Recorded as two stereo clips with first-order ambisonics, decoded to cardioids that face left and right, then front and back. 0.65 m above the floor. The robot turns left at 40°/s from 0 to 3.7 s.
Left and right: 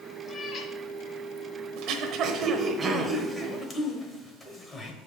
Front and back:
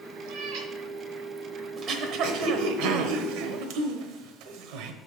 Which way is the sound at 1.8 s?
120° right.